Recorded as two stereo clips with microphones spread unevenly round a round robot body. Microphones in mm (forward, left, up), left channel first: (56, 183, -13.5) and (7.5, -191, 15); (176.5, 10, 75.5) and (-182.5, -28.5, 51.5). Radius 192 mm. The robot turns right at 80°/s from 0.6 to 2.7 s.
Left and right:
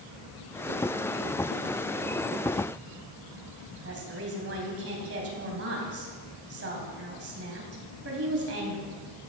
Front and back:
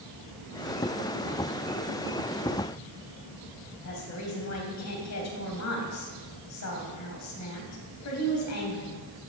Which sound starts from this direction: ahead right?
A woman speaking, at 3.8 s.